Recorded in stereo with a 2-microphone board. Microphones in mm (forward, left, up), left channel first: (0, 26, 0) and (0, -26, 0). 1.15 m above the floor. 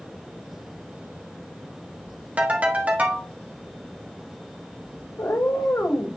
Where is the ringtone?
30° right (ahead or behind), 1.5 m.